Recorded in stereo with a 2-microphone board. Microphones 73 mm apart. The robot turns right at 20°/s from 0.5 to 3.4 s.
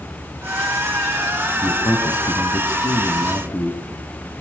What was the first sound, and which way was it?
A man speaking, 95° left.